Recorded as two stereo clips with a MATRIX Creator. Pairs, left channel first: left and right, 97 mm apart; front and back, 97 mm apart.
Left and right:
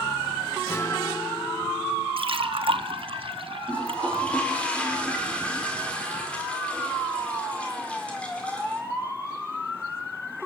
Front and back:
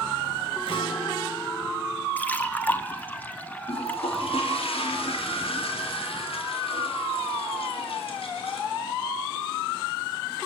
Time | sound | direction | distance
0.7 | a guitar | 20° left | 3.5 m
2.2 | a splash | 70° right | 1.2 m
3.7 | a toilet flushing | 10° left | 4.5 m